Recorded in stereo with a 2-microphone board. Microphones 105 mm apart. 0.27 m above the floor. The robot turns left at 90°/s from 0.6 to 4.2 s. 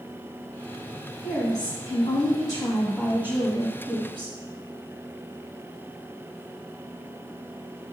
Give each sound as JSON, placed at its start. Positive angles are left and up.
{"t": 1.2, "sound": "a woman speaking", "azimuth_deg": 155, "distance_m": 1.3}